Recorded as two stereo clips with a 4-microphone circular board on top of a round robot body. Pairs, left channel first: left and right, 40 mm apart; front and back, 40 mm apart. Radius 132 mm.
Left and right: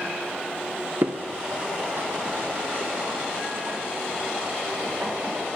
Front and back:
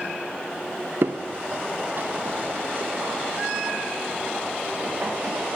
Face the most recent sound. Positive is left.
turn(degrees=-135)